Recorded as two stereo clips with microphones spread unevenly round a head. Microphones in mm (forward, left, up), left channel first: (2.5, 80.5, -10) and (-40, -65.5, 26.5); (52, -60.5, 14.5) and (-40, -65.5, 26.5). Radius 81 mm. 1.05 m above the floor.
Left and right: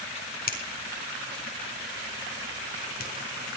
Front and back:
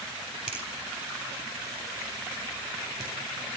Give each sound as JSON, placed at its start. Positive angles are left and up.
{"t": 0.5, "sound": "a finger snap", "azimuth_deg": 100, "distance_m": 4.0}